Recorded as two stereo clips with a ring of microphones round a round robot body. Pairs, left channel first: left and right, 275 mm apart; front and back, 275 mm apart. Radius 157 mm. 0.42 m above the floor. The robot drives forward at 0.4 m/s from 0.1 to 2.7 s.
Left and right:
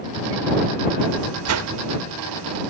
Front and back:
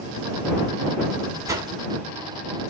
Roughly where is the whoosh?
Right.